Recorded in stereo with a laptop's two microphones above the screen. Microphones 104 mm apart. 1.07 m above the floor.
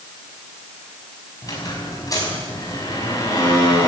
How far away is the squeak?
About 5 m.